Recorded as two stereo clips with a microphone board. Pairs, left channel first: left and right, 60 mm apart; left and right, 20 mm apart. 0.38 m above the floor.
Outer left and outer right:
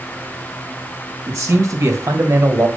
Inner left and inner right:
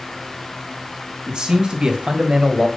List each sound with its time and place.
1.3 s a man speaking: 55° right (ahead or behind), 2.5 m; by 2.7 s 50° right (ahead or behind), 1.6 m